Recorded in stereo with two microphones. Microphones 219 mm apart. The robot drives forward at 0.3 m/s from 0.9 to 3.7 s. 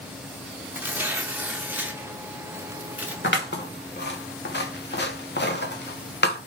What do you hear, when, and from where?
0.7 s tearing paper: 10° right (ahead or behind), 0.9 m
3.2 s scissors: 55° left (ahead or behind), 1.0 m; by 6.4 s 50° left (ahead or behind), 1.0 m